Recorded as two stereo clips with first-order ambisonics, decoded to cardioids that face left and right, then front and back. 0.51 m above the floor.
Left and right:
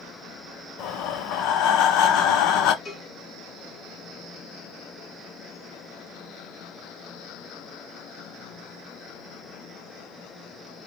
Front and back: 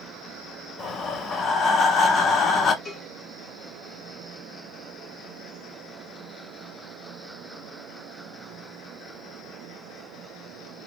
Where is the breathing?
60° left, 0.6 m.